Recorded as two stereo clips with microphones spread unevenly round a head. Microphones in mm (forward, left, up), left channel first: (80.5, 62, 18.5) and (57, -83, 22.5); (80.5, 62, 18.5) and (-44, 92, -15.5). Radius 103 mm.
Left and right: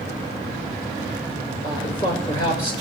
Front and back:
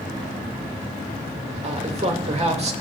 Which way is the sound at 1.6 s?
145° left.